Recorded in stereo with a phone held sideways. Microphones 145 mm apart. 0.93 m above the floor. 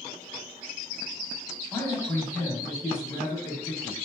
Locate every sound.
1.7 s a man speaking: 15° left (ahead or behind), 1.6 m